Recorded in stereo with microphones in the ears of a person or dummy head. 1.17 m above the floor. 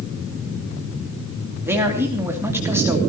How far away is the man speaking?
About 3 m.